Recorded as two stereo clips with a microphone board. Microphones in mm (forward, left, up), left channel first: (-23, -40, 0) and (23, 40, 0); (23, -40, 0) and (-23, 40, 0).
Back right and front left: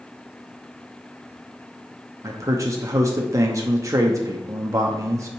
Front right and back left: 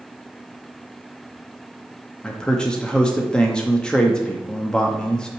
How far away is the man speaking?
About 0.7 m.